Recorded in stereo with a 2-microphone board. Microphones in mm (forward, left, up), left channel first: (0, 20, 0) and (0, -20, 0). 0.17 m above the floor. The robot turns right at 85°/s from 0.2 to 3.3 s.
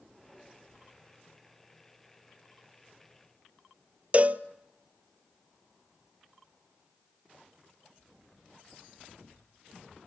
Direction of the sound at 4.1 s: 35° right (ahead or behind).